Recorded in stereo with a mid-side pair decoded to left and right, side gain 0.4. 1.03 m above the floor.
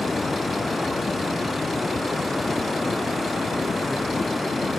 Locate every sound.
0.0 s running water: 20° left